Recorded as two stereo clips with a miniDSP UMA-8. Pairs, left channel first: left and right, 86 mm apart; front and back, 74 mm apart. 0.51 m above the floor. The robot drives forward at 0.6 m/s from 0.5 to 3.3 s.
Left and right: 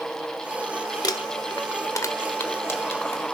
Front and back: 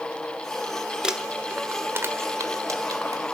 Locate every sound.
1.0 s crumpling: 105° left, 1.1 m; by 3.2 s 150° left, 1.9 m